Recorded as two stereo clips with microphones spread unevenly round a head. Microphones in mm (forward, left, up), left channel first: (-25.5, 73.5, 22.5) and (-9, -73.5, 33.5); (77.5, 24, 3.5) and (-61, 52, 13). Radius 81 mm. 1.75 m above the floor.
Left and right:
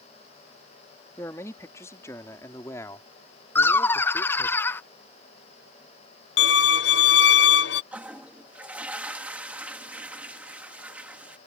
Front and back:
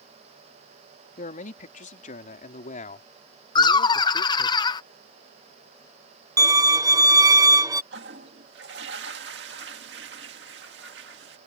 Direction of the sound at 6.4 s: 105° left.